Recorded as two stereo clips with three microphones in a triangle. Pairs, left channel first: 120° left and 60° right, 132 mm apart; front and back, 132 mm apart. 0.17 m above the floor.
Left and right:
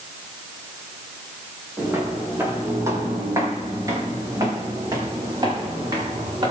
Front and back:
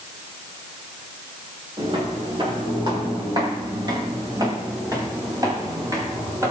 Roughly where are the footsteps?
Behind right.